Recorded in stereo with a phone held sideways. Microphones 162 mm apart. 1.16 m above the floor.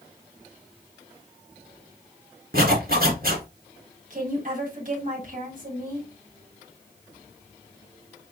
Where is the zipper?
65° right (ahead or behind), 2.5 m.